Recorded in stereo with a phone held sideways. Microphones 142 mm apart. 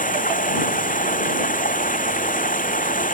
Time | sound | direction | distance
0.0 | running water | 70° left (ahead or behind) | ?